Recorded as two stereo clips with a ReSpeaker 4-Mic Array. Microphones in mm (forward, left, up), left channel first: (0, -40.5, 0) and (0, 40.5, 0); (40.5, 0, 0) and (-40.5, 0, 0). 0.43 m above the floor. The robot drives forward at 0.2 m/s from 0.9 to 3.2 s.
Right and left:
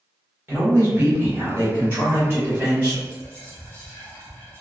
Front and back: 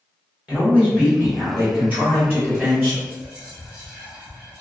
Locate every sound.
0.5 s a man speaking: 125° left, 1.6 m; by 3.0 s 140° left, 1.8 m
3.0 s whispering: 125° right, 1.0 m